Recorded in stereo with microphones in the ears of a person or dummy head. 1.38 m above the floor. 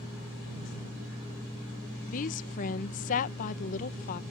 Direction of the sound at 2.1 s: 45° left (ahead or behind).